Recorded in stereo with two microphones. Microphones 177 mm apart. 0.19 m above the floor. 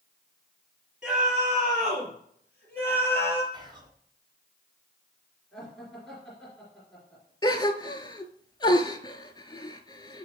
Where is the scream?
5° right (ahead or behind), 5 m; by 3.4 s 15° left (ahead or behind), 5 m.